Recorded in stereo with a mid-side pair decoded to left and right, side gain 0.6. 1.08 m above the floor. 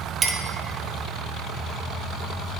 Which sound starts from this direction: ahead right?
A clink, at 0.2 s.